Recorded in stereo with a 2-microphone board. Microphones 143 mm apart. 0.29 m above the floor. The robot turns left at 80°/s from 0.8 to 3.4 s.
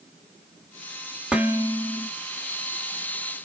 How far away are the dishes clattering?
About 1.0 m.